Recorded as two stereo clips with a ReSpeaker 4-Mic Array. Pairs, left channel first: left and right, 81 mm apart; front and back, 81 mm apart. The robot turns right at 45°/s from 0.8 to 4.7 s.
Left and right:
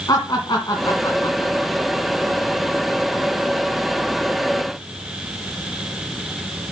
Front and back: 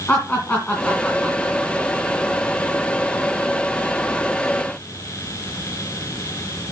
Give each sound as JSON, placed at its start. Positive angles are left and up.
{"t": 0.1, "sound": "laughter", "azimuth_deg": 70, "distance_m": 2.5}